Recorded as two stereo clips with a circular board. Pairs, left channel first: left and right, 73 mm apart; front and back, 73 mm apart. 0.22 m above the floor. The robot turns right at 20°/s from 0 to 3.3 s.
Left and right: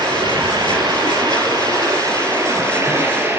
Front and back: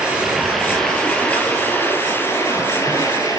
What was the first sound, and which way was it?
Running water, 100° right.